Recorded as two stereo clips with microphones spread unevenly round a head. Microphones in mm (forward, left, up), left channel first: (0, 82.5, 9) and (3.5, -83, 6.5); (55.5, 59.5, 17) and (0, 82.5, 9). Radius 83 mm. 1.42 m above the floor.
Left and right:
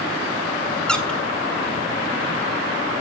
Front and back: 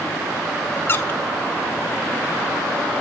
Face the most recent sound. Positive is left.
turn(degrees=10)